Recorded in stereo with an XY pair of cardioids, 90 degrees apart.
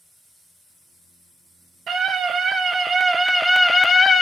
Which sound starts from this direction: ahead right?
A scream, at 1.9 s.